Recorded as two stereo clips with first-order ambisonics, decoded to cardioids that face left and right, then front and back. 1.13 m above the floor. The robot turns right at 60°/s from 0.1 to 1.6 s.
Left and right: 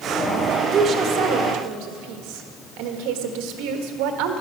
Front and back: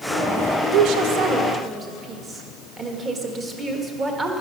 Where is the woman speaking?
160° right, 1.3 m; by 4.4 s 110° right, 1.3 m.